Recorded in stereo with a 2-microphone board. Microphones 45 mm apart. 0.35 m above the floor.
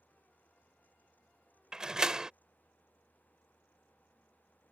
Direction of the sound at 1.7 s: 15° right (ahead or behind).